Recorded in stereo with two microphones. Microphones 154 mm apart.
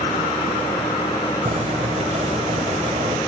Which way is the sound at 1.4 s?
45° right (ahead or behind).